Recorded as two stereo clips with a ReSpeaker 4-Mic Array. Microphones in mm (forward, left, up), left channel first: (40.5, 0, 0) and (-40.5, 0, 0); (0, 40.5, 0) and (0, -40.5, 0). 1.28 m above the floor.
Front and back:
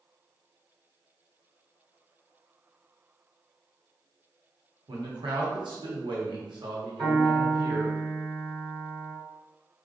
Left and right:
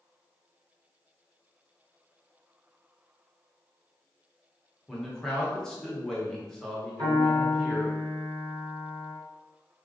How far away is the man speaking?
About 0.7 m.